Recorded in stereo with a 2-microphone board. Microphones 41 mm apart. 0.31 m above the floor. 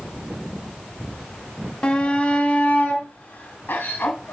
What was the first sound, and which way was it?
A shout, 25° left (ahead or behind).